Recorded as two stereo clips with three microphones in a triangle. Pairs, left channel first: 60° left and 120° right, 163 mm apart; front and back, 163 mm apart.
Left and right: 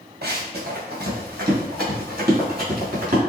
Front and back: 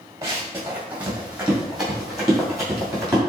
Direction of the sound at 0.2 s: 105° right.